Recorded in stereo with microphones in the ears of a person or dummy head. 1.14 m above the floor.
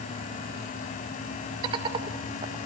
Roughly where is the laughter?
Right.